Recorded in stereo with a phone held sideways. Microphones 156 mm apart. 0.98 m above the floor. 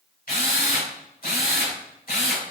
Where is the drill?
80° left, 3 m.